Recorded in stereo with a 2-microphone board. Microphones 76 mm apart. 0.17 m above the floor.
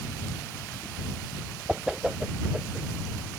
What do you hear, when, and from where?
1.7 s a whoosh: 10° right (ahead or behind)